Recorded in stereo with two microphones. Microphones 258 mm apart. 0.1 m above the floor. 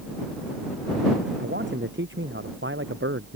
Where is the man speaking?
45° right (ahead or behind); by 3.4 s 50° right (ahead or behind).